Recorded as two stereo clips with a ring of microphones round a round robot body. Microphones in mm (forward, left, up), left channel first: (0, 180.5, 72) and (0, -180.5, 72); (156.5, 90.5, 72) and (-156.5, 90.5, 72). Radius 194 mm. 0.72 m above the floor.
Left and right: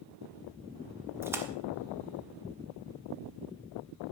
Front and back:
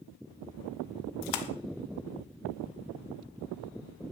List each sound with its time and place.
1.2 s a splash: 5° right, 1.3 m